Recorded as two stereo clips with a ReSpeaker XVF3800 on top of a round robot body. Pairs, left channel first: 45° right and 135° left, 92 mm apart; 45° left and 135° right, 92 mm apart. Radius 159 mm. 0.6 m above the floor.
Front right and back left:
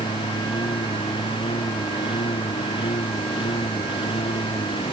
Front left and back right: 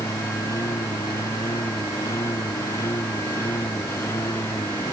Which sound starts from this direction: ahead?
A lawn mower, at 0.0 s.